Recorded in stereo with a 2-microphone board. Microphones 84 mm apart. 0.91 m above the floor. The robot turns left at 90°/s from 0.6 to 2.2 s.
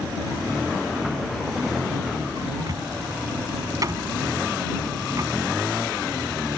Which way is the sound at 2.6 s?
45° right (ahead or behind).